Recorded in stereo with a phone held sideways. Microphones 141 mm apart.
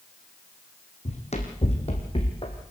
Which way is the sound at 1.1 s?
50° left (ahead or behind).